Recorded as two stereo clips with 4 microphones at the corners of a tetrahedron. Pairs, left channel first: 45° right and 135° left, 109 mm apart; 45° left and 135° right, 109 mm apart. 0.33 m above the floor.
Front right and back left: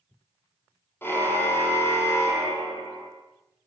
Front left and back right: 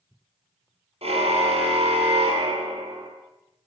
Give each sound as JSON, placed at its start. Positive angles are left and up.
{"t": 1.0, "sound": "a car horn", "azimuth_deg": -115, "distance_m": 5.5}